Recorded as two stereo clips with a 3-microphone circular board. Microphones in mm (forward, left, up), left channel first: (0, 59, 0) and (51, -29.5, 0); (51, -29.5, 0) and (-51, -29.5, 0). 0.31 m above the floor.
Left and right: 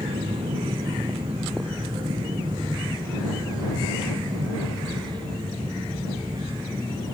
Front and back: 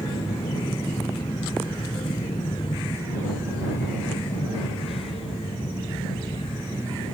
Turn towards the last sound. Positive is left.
turn(degrees=-10)